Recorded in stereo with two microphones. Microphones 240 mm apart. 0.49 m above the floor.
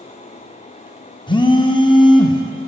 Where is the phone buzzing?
20° left (ahead or behind), 0.6 m.